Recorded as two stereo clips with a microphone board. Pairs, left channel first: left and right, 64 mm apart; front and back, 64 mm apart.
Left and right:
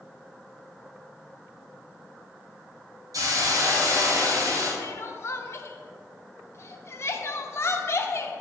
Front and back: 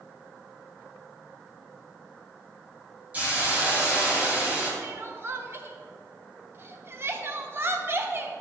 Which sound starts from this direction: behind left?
Crying, at 4.8 s.